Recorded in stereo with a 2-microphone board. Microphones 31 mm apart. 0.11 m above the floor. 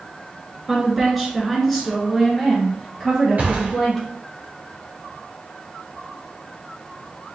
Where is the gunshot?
50° right (ahead or behind), 3 m.